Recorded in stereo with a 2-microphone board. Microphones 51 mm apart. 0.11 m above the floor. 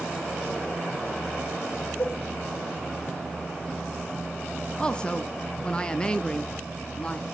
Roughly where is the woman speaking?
Centre.